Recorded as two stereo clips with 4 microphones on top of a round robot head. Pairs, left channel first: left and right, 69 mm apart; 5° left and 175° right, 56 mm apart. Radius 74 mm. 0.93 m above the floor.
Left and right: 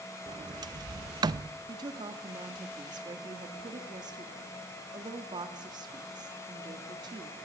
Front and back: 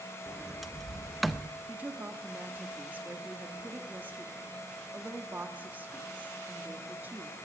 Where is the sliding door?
85° right, 0.8 m.